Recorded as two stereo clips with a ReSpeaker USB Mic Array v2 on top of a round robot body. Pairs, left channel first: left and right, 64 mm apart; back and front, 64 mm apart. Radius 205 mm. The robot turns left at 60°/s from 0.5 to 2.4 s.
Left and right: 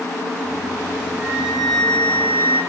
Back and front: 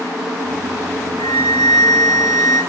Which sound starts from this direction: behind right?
A flute, at 1.2 s.